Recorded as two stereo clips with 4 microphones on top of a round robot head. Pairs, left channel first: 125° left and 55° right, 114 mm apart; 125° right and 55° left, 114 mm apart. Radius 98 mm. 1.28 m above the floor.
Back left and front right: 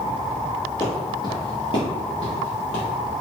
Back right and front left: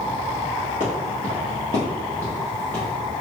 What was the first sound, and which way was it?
Footsteps, 165° right.